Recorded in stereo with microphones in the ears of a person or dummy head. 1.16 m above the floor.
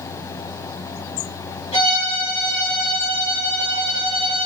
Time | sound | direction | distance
1.7 | a violin | 35° left (ahead or behind) | 4.5 m